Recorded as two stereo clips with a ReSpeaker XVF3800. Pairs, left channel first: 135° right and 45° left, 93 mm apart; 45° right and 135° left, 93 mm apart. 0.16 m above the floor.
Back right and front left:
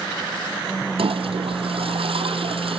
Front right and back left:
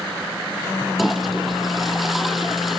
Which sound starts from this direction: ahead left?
A toilet flushing, at 1.0 s.